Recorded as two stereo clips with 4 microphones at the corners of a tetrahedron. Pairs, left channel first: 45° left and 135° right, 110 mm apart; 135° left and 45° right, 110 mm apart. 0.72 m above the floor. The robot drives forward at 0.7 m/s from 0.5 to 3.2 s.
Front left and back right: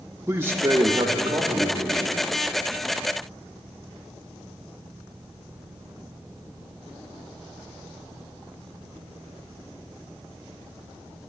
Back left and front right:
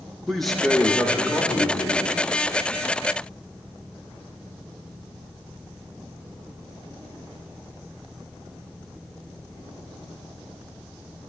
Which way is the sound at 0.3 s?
140° right.